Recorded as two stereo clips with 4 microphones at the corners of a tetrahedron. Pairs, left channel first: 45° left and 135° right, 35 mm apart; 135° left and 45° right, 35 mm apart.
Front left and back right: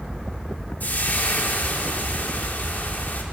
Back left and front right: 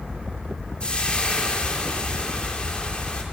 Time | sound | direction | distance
0.8 | frying | 75° left | 2.5 m